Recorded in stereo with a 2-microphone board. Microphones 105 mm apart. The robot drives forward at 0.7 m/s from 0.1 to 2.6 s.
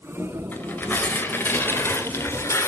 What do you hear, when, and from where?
0.5 s tearing paper: 20° left (ahead or behind), 4 m; by 2.7 s 30° left (ahead or behind), 2.5 m